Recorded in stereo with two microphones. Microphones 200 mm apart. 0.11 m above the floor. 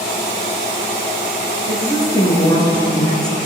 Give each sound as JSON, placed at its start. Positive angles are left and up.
{"t": 1.7, "sound": "a woman speaking", "side_deg": 20, "distance_m": 1.2}